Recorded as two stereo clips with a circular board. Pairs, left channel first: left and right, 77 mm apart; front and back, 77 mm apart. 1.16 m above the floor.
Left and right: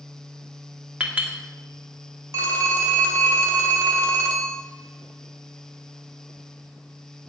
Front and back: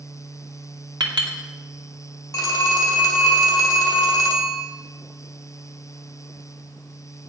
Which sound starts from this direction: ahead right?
A phone ringing, at 2.3 s.